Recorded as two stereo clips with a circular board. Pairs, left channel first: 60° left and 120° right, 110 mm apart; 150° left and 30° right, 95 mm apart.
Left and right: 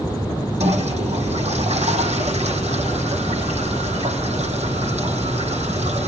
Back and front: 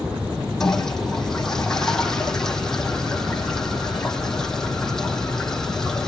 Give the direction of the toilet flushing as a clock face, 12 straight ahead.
4 o'clock.